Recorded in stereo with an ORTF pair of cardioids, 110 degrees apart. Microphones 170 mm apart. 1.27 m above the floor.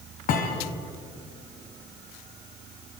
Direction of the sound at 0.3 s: 60° left.